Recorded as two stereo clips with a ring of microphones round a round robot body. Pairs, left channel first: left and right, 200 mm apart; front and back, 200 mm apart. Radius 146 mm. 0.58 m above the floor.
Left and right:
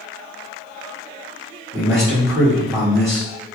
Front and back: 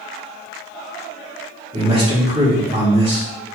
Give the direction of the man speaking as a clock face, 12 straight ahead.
5 o'clock.